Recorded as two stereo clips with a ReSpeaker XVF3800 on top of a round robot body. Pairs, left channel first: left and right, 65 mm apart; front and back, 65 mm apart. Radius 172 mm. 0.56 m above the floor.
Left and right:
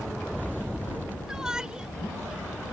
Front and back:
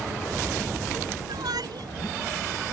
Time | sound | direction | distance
1.3 | a shout | 170° right | ?